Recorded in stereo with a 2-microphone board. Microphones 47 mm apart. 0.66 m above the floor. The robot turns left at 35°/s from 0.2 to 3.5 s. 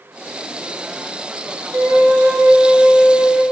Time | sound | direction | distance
1.7 | a flute | 125° right | 1.3 m